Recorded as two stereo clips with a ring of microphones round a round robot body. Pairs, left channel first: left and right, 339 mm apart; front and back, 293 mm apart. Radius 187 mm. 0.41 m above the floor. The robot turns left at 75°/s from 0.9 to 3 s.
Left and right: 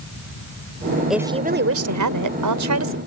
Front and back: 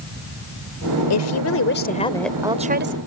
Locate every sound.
1.1 s a woman speaking: straight ahead; by 3.0 s 140° right